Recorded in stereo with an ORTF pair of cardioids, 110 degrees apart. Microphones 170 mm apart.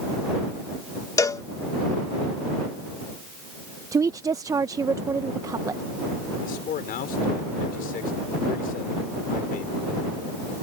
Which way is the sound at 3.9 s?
20° right.